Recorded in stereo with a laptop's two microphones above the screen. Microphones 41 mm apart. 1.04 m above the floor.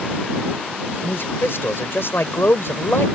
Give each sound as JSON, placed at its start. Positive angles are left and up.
{"t": 1.0, "sound": "a man speaking", "side_deg": 70}